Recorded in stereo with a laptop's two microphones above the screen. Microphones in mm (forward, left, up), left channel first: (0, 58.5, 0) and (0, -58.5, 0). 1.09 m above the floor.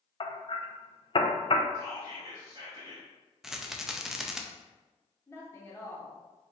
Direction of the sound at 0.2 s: 50° left (ahead or behind).